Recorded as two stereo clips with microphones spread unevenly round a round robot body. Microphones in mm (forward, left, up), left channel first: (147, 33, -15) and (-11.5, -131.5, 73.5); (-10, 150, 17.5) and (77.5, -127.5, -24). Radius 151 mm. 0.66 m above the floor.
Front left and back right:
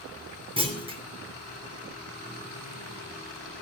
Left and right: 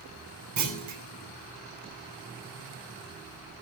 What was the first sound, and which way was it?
A clunk, 60° right.